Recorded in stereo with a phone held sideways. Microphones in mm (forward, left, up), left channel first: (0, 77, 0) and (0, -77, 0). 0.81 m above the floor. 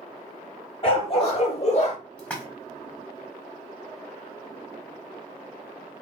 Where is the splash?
10° left (ahead or behind), 1.1 m.